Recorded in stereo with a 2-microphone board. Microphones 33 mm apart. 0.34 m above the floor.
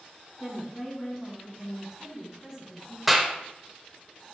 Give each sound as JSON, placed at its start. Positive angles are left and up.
{"t": 0.4, "sound": "a woman speaking", "side_deg": 25, "distance_m": 3.5}
{"t": 3.1, "sound": "a clap", "side_deg": -5, "distance_m": 0.7}